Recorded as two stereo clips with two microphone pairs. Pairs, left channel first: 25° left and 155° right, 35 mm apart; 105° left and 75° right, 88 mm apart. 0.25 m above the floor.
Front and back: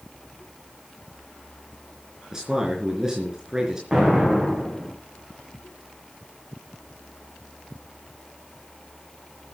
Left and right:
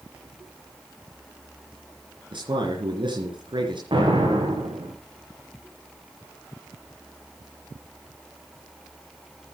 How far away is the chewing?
I don't hear chewing.